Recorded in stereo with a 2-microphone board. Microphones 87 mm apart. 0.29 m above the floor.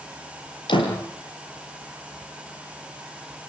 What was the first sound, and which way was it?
A door slam, 70° left (ahead or behind).